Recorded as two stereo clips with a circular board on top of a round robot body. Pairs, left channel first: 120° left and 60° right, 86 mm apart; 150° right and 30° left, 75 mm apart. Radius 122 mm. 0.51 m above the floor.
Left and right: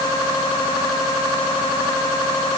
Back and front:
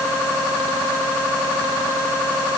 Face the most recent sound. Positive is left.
No sound to turn to.